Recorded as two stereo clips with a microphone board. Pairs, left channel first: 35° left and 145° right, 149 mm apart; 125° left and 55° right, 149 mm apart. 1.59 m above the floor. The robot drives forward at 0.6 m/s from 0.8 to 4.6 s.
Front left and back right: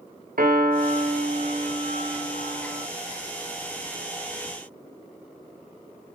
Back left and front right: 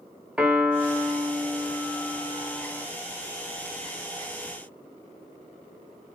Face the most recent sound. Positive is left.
turn(degrees=-165)